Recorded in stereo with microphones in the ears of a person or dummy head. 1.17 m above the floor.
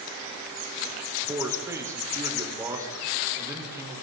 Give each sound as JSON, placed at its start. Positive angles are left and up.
{"t": 1.3, "sound": "a man speaking", "side_deg": -10, "distance_m": 4.5}